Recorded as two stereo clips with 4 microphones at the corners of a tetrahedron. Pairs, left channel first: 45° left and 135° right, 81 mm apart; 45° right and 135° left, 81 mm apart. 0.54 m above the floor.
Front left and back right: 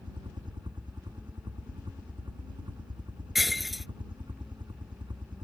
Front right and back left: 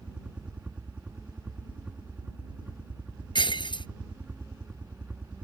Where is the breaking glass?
45° right.